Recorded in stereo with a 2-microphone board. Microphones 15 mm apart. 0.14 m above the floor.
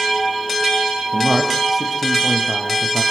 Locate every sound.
1.1 s a man speaking: 15° right (ahead or behind), 6 m; by 3.0 s 20° right (ahead or behind), 4 m